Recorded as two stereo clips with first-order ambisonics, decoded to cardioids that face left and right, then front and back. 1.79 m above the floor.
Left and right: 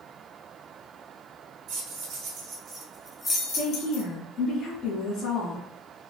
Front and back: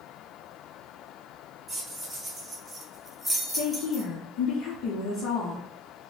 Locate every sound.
1.7 s keys jangling: 100° right, 1.4 m; by 4.0 s 85° left, 1.2 m
3.5 s a woman speaking: 30° left, 1.0 m